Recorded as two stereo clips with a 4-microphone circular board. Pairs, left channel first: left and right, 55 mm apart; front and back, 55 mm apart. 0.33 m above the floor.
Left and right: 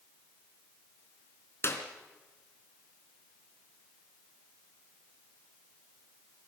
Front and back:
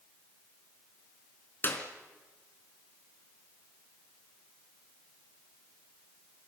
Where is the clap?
50° left, 3.5 m.